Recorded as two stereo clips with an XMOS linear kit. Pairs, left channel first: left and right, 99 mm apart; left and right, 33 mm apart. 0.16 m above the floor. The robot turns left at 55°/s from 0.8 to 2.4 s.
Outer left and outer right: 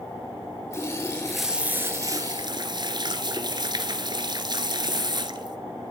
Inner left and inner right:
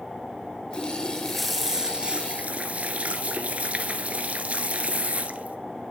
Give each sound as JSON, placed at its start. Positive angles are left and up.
{"t": 0.7, "sound": "a running tap", "azimuth_deg": 30, "distance_m": 1.4}